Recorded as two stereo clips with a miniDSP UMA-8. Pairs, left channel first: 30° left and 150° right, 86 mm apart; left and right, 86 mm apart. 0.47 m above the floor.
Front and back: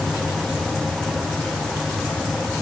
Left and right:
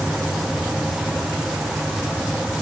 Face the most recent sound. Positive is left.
No sound to turn to.